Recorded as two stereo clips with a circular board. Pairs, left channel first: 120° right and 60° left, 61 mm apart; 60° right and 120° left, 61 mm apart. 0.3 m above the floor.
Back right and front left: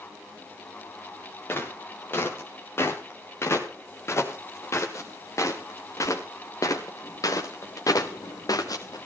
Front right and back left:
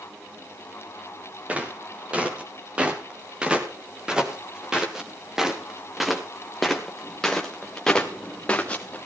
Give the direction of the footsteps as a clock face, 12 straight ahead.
6 o'clock.